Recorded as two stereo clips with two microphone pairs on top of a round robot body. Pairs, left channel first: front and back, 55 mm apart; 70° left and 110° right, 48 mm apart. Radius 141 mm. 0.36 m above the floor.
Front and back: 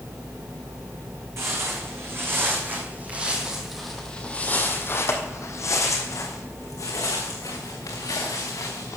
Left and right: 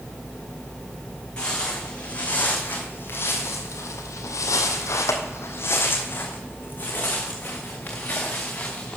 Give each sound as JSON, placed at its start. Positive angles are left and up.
{"t": 1.4, "sound": "footsteps", "azimuth_deg": 140, "distance_m": 2.0}